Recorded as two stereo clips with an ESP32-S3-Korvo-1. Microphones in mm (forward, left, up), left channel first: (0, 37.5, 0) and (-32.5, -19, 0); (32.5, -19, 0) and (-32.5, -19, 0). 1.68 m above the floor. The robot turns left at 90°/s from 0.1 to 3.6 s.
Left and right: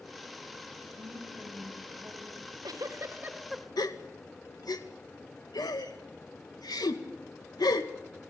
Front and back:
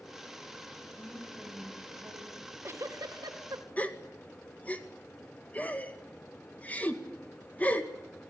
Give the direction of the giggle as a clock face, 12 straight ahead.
4 o'clock.